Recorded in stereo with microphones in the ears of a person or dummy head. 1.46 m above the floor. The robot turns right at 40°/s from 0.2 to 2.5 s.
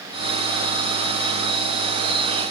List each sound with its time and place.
Only background noise.